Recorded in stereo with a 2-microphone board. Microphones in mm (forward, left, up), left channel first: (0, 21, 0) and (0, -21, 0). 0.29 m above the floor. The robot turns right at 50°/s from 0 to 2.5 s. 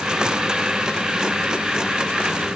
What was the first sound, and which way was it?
Only background noise.